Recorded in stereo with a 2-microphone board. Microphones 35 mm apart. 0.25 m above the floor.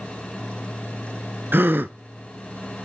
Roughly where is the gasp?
Right.